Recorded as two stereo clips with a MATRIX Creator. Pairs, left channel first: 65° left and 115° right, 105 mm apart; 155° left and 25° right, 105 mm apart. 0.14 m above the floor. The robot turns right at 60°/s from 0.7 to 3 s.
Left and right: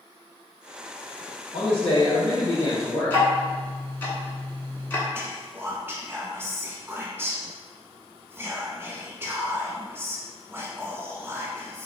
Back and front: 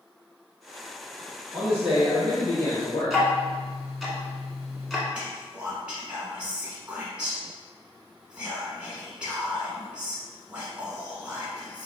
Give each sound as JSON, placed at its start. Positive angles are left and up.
{"t": 1.5, "sound": "a man speaking", "azimuth_deg": 40, "distance_m": 1.9}
{"t": 3.1, "sound": "ticking", "azimuth_deg": 70, "distance_m": 1.0}
{"t": 5.1, "sound": "whispering", "azimuth_deg": -85, "distance_m": 1.2}